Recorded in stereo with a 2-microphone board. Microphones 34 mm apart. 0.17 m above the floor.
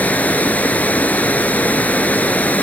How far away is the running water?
About 0.7 m.